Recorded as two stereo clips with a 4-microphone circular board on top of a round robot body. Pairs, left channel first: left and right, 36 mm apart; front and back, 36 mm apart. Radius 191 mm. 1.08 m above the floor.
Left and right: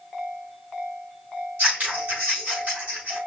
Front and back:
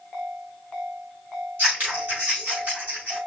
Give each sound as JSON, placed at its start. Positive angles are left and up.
{"t": 1.6, "sound": "scissors", "azimuth_deg": -145, "distance_m": 3.5}